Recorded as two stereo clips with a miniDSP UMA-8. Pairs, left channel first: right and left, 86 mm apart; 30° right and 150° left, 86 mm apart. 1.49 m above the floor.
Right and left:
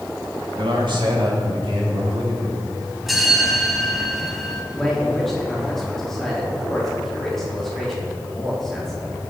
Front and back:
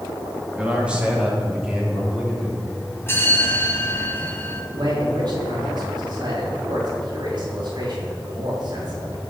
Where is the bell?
5° left, 1.5 m.